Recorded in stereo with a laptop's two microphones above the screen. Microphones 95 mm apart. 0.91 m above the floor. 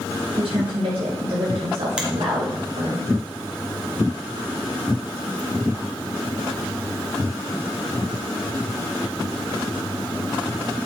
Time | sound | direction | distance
0.4 | a woman speaking | 80° right | 4.5 m
2.0 | a finger snap | 10° right (ahead or behind) | 2 m